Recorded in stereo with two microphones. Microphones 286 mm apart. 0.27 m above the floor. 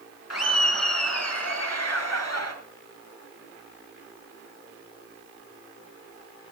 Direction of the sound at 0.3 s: 70° left (ahead or behind).